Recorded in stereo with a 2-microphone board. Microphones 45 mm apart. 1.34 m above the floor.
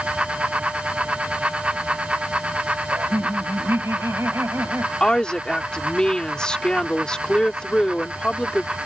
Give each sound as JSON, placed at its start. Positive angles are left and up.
{"t": 2.9, "sound": "laughter", "side_deg": -85}
{"t": 5.0, "sound": "a woman speaking", "side_deg": 20}